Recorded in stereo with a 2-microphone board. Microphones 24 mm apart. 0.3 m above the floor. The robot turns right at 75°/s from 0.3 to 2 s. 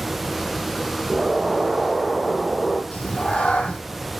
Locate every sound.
1.1 s an explosion: 35° right, 3.5 m; by 2.8 s 35° left, 3.5 m
2.9 s a cat meowing: 60° left (ahead or behind), 1.8 m